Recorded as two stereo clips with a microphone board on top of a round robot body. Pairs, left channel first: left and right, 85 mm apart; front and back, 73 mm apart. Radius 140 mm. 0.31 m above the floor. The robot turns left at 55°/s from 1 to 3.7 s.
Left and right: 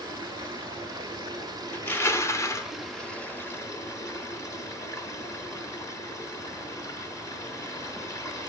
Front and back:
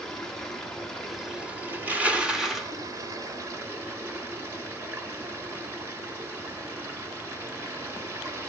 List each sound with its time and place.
0.0 s running water: 80° right, 1.2 m; by 8.5 s 135° left, 1.2 m
1.7 s crushing: 140° left, 0.9 m; by 2.7 s 90° left, 0.9 m